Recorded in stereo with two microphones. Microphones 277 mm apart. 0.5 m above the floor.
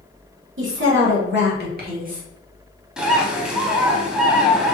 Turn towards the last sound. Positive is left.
turn(degrees=-5)  # may be behind; listen again after turning